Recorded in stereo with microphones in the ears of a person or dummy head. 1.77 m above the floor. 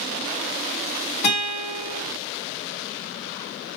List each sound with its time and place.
1.2 s a guitar: 45° left (ahead or behind), 2.5 m